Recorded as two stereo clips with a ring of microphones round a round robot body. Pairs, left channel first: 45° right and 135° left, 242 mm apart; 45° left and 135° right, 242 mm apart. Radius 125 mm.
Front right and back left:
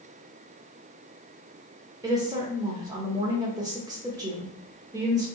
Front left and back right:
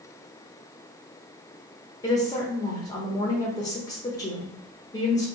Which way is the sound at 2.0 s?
90° left.